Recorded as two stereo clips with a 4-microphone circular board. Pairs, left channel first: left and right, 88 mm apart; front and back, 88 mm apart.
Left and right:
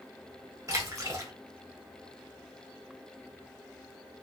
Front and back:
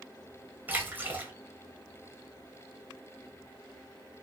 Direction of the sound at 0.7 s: 120° right.